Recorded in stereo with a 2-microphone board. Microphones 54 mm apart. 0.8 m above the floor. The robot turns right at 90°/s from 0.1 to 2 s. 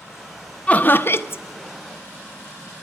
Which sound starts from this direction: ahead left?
Laughter, at 0.7 s.